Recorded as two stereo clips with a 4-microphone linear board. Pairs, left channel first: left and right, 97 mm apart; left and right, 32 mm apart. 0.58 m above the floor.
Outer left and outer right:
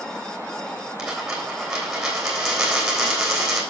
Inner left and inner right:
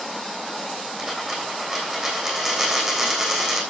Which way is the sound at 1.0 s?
5° right (ahead or behind).